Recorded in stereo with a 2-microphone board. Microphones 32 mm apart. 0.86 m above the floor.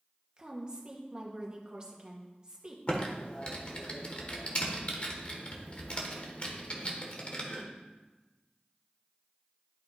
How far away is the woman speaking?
About 1.3 m.